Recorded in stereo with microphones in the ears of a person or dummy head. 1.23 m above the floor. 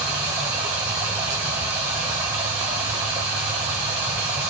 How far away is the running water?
About 1.0 m.